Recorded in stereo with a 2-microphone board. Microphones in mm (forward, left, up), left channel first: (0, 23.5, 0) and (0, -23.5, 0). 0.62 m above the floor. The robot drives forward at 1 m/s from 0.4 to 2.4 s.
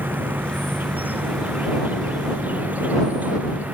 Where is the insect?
40° right (ahead or behind); by 3.8 s 35° right (ahead or behind).